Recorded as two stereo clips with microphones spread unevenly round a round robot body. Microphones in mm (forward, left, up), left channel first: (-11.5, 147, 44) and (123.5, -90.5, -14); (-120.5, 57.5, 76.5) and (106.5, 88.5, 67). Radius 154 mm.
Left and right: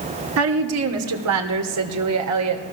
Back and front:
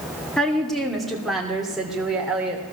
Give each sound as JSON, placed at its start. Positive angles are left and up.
{"t": 0.4, "sound": "a woman speaking", "azimuth_deg": -85, "distance_m": 2.0}